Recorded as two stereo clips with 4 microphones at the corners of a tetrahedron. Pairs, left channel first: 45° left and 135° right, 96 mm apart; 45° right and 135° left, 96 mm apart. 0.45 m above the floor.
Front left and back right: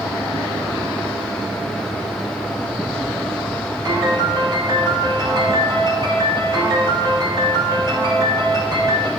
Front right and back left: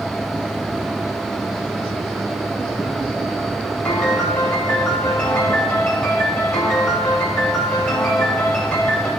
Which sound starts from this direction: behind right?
A piano, at 3.9 s.